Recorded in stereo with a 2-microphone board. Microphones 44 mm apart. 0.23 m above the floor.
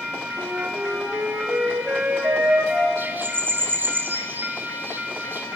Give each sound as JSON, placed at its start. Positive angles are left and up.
{"t": 0.4, "sound": "a flute", "side_deg": -45, "distance_m": 3.5}
{"t": 3.0, "sound": "a bird", "side_deg": -50, "distance_m": 1.5}